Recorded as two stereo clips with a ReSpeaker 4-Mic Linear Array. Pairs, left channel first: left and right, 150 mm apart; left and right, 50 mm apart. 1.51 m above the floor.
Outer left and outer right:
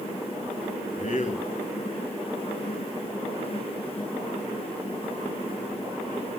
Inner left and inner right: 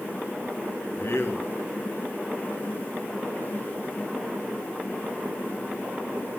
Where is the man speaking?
55° left (ahead or behind), 2.5 m.